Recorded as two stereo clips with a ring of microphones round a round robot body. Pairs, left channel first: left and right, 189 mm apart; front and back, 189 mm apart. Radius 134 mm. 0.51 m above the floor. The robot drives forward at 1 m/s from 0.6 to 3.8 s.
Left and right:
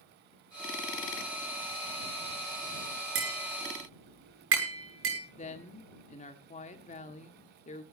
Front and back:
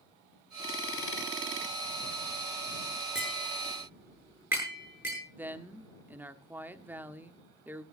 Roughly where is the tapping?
Right.